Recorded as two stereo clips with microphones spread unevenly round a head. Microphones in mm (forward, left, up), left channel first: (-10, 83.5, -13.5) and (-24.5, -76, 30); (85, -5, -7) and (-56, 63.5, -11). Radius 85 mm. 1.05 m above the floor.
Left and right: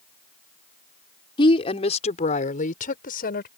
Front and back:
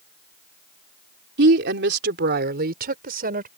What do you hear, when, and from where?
1.4 s a woman speaking: 145° left; by 3.5 s 120° left